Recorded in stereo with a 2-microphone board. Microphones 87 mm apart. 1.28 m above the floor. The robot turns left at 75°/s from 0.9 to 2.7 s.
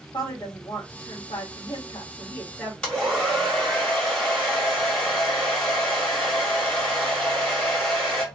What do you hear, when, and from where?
0.1 s a woman speaking: 135° left, 1.4 m; by 2.7 s straight ahead, 1.4 m
2.8 s a hair dryer: 10° left (ahead or behind), 1.6 m